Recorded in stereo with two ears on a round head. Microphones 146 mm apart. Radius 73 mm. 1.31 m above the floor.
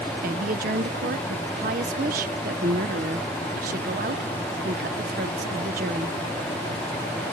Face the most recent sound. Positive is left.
turn(degrees=-55)  # may be behind; listen again after turning